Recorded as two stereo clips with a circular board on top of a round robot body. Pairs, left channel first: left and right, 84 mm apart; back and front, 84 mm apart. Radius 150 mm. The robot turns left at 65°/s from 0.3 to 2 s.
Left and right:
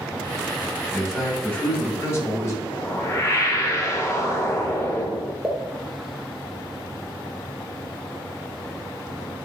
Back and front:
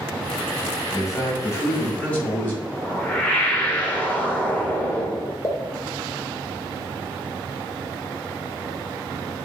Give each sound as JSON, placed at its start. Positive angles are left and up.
{"t": 0.9, "sound": "a man speaking", "azimuth_deg": -165, "distance_m": 1.5}
{"t": 2.6, "sound": "a whoosh", "azimuth_deg": 120, "distance_m": 0.9}
{"t": 5.4, "sound": "a pop", "azimuth_deg": -175, "distance_m": 0.7}